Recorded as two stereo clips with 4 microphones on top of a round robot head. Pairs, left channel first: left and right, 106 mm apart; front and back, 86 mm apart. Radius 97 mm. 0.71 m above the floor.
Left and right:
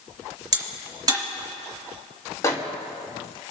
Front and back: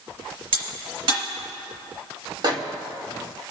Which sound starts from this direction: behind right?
A crack, at 0.5 s.